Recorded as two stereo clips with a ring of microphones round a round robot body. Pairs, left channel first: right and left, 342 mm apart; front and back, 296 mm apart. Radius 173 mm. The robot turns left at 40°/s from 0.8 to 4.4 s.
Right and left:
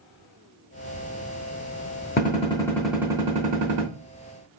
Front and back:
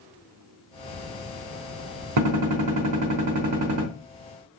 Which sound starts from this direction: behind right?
A gunshot, at 2.2 s.